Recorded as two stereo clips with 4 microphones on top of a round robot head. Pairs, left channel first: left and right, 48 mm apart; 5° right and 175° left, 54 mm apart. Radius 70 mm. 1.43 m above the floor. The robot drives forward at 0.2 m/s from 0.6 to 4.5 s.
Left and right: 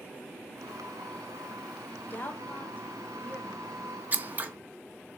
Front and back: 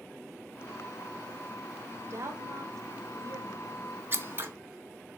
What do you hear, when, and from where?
2.1 s a woman speaking: 140° left, 0.6 m; by 3.8 s 155° left, 0.9 m
4.1 s scissors: 140° right, 0.7 m; by 4.5 s 145° right, 0.7 m